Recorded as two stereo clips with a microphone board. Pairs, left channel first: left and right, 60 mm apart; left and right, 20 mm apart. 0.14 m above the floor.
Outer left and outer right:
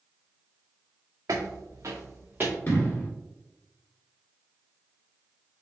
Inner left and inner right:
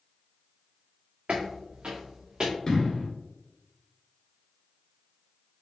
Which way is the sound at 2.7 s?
35° left (ahead or behind).